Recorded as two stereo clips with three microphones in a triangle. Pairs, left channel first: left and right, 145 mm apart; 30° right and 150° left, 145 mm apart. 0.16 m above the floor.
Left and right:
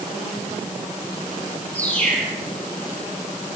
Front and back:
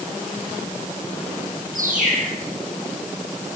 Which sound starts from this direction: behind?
A bird, at 1.8 s.